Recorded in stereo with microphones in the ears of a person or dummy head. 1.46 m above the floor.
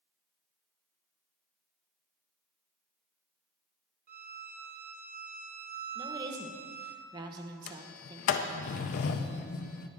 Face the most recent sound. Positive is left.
turn(degrees=50)  # may be behind; listen again after turning